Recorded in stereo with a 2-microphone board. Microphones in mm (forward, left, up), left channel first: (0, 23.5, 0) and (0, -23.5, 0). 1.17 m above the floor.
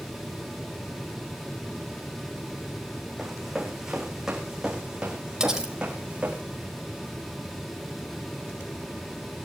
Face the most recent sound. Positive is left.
turn(degrees=-15)  # may be behind; listen again after turning